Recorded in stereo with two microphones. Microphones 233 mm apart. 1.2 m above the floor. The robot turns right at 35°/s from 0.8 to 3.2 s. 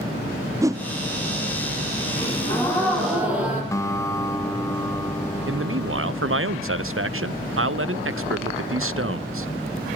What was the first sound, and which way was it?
A whoosh, 15° right (ahead or behind).